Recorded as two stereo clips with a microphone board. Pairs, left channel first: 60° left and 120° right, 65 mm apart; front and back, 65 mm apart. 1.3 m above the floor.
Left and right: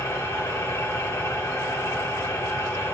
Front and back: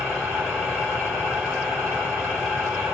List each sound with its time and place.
0.0 s an engine running: 75° left, 1.9 m